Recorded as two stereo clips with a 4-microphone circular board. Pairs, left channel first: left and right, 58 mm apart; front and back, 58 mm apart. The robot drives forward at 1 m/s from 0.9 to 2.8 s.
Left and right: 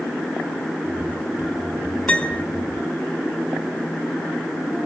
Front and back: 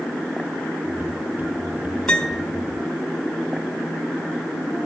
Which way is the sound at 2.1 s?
50° left.